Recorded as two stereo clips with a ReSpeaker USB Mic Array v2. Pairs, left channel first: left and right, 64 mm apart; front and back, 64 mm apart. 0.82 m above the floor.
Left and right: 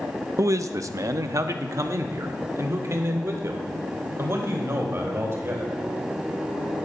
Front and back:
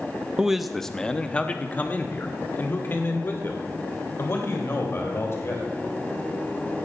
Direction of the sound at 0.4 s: 105° right.